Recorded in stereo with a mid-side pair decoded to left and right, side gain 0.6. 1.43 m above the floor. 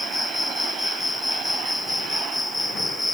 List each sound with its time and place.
0.0 s an insect: 10° left